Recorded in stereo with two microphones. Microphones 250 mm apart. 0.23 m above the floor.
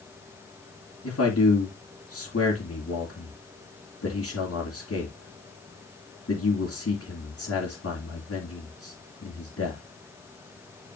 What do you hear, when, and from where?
1.0 s a man speaking: 65° left (ahead or behind), 2.5 m